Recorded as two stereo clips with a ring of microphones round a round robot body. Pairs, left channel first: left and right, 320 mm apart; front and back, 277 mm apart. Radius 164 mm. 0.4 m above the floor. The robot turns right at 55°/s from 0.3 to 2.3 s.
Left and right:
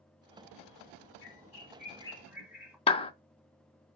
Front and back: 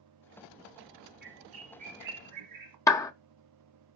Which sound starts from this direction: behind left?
A bird, at 1.2 s.